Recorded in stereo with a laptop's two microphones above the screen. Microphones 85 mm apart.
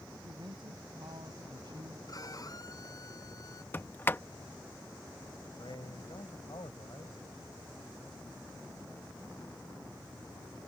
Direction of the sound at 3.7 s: 25° left (ahead or behind).